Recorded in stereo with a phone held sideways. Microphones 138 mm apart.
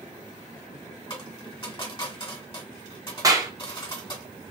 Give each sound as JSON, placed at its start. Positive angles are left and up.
{"t": 1.1, "sound": "a dropped coin", "side_deg": 35, "distance_m": 1.3}
{"t": 3.2, "sound": "a clap", "side_deg": -25, "distance_m": 0.5}